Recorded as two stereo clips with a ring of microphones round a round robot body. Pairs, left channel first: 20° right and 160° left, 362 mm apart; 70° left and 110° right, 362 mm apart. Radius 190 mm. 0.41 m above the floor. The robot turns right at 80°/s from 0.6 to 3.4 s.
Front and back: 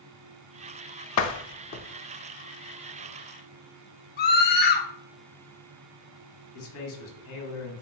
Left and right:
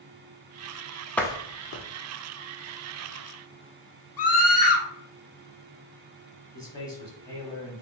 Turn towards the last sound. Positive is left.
turn(degrees=-10)